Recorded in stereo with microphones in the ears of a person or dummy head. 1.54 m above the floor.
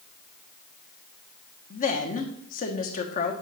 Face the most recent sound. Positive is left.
turn(degrees=40)  # may be behind; listen again after turning